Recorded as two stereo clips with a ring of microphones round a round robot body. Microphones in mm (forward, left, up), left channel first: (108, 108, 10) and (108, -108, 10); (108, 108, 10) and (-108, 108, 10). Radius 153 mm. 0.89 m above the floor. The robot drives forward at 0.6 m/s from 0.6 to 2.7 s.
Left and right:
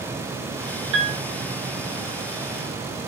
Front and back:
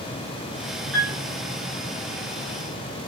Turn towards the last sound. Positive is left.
turn(degrees=-140)